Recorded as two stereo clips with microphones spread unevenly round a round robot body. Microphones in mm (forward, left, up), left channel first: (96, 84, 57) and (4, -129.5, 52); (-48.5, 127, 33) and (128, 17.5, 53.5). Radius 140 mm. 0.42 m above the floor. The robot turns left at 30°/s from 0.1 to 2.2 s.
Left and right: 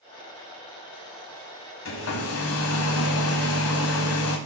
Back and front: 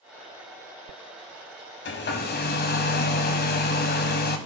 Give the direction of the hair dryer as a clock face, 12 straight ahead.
8 o'clock.